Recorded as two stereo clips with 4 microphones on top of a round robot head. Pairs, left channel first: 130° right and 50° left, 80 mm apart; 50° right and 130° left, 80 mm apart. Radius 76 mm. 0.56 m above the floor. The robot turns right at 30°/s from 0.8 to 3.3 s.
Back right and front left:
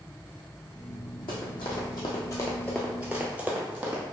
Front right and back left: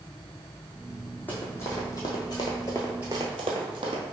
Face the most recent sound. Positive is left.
turn(degrees=120)